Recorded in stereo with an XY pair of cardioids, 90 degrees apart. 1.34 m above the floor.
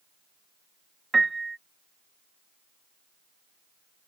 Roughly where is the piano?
Ahead right.